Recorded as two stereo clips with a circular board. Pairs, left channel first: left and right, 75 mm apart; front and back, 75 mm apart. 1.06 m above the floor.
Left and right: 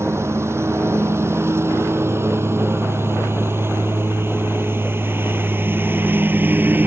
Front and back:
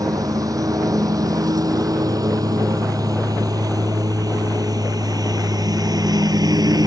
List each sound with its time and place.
0.0 s a lawn mower: 145° right; by 6.9 s 155° right